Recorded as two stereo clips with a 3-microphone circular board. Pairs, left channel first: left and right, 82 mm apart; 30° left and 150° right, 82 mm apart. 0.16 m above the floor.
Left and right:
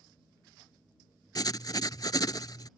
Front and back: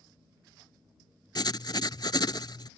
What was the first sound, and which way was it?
Writing, 55° left.